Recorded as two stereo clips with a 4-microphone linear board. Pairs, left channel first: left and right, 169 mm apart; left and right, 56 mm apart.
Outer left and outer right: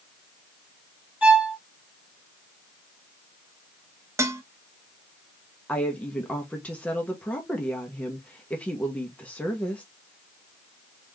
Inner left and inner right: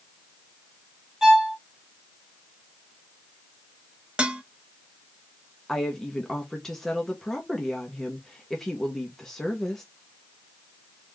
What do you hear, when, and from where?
1.2 s a violin: 5° right (ahead or behind), 1.6 m
4.2 s dishes clattering: 15° right (ahead or behind), 0.6 m
5.7 s a woman speaking: 5° left (ahead or behind), 0.9 m